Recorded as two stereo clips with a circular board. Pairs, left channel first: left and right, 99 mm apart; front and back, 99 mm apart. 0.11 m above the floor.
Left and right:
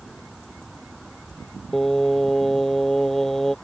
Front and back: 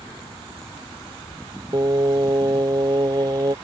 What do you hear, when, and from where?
1.7 s singing: 175° left